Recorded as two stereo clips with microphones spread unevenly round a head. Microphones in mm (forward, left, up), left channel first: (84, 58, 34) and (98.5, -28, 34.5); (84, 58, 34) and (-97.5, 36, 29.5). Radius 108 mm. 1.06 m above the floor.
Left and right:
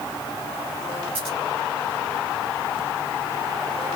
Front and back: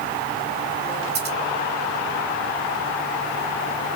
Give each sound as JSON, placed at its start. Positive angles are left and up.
{"t": 1.1, "sound": "scissors", "azimuth_deg": -130, "distance_m": 3.0}